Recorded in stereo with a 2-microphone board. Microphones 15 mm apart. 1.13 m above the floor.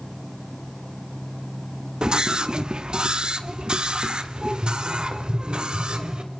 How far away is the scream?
About 1.4 m.